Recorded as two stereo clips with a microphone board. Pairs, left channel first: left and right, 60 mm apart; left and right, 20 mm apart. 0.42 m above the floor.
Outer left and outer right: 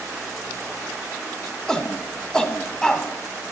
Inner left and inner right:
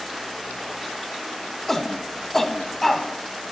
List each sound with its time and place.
1.7 s a shout: 10° left (ahead or behind), 1.2 m